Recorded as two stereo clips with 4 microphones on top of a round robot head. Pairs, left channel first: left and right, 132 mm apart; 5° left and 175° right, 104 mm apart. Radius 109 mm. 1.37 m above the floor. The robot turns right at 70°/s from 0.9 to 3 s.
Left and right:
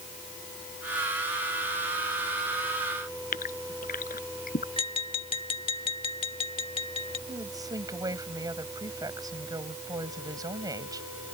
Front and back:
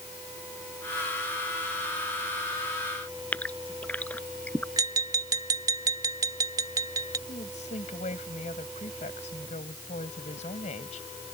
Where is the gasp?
80° left.